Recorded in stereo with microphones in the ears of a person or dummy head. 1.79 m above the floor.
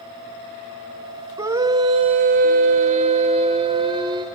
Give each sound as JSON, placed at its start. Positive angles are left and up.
{"t": 1.4, "sound": "a scream", "side_deg": -15, "distance_m": 1.1}